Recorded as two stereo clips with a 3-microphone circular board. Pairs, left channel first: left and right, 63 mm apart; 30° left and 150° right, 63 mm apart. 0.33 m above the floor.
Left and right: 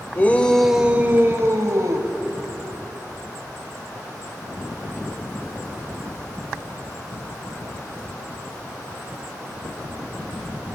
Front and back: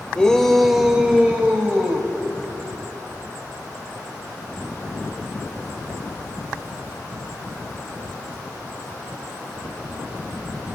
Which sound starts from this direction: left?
A shout, at 0.1 s.